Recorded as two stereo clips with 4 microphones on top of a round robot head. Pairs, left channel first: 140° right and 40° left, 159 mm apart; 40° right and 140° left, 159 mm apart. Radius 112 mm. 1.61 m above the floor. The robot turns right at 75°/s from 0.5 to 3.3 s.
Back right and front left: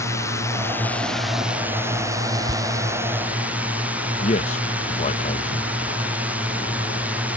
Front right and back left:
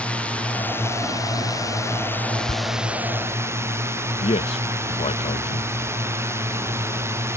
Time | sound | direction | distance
0.0 | a drone | 110° right | ?
2.5 | tearing paper | 15° right | ?
4.2 | a man speaking | 95° right | ?